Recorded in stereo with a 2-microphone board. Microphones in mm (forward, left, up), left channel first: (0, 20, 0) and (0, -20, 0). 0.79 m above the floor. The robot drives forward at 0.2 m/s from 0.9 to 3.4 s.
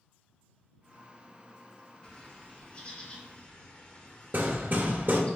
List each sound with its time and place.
2.0 s a bird: 25° left (ahead or behind), 1.0 m
4.3 s hammering: 55° right (ahead or behind), 0.8 m